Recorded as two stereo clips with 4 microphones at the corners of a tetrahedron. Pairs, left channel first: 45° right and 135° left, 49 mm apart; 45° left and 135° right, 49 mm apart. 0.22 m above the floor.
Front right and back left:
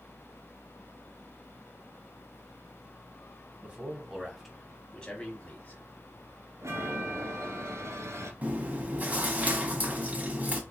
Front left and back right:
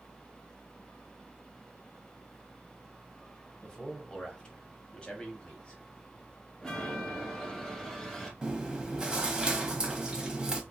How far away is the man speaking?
About 1.1 m.